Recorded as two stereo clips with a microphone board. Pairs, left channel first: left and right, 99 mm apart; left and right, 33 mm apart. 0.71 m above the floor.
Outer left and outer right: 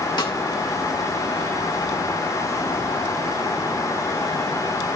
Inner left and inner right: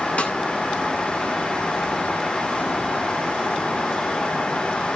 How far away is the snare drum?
About 1.9 m.